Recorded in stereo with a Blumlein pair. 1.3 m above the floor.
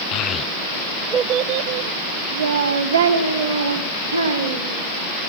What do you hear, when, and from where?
0.1 s a child speaking: 35° left, 0.6 m; by 4.8 s 80° right, 2.5 m